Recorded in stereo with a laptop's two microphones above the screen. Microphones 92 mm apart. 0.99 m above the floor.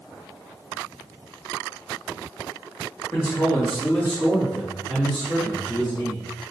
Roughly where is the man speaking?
Left.